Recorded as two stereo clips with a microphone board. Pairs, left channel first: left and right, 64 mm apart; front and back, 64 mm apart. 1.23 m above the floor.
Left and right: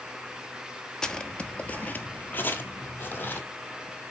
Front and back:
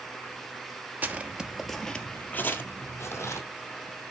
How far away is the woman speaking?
I don't hear a woman speaking.